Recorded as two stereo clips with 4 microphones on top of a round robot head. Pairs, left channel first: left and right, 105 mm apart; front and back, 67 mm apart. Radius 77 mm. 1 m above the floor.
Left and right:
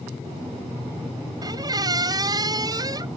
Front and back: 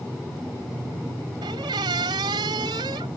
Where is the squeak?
140° right.